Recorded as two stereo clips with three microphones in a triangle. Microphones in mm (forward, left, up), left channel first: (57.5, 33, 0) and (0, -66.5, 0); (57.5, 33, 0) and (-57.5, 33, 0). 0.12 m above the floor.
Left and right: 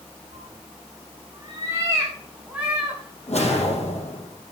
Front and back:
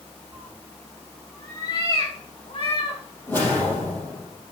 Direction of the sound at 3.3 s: 70° left.